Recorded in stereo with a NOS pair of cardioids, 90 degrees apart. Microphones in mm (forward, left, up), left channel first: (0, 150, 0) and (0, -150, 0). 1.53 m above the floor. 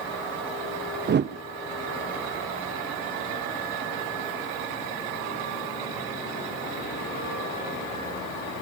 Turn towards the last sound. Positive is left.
turn(degrees=-35)